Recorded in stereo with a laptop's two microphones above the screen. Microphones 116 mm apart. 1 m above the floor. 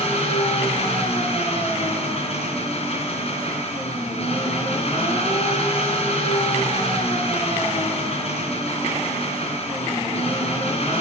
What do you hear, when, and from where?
0.0 s an engine running: 60° left (ahead or behind), 3.5 m